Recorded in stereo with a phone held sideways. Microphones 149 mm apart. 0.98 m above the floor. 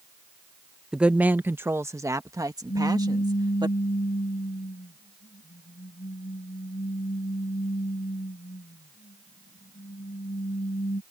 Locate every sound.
0.9 s a woman speaking: 5° right (ahead or behind); by 3.7 s 30° right (ahead or behind)
2.7 s a pop: 85° left